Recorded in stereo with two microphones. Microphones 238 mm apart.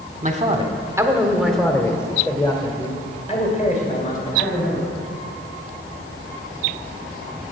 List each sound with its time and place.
0.2 s a man speaking: 30° right (ahead or behind), 1.2 m; by 4.8 s 35° left (ahead or behind), 3 m